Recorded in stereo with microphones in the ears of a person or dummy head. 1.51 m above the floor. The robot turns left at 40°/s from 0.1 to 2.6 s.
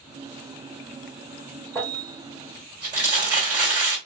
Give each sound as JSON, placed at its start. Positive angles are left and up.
{"t": 1.8, "sound": "crumpling", "side_deg": 15, "distance_m": 2.0}